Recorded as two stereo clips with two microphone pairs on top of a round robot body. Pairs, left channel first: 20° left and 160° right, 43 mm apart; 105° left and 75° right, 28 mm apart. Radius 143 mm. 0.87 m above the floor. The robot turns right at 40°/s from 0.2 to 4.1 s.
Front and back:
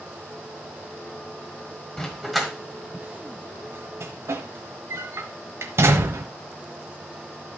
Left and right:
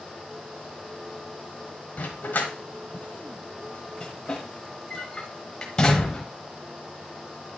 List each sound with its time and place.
2.0 s a dog barking: 90° left, 1.0 m; by 6.2 s 175° left, 1.0 m